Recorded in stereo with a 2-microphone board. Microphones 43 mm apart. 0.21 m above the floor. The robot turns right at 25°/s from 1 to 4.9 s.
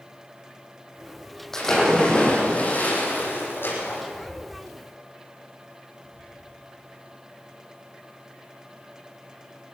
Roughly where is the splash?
Ahead.